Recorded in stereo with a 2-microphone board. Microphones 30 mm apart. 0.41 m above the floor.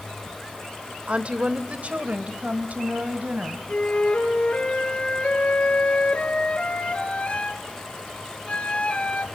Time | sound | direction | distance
1.1 | a woman speaking | 40° right (ahead or behind) | 1.0 m
3.7 | a flute | 40° left (ahead or behind) | 2.5 m